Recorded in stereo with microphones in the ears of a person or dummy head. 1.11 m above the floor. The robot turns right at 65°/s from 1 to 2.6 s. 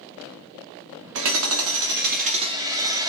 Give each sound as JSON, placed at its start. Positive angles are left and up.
{"t": 1.1, "sound": "hammering", "azimuth_deg": -120, "distance_m": 0.7}